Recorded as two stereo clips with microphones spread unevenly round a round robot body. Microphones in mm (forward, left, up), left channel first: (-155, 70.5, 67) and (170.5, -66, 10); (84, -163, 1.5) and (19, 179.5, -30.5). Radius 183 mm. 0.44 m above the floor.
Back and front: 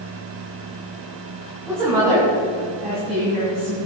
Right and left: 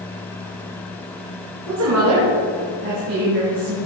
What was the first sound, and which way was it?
A woman speaking, 60° left.